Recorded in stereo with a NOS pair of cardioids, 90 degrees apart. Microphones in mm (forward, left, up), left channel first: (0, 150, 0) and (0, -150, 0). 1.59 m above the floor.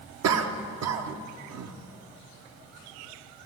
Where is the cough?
65° right, 1.0 m.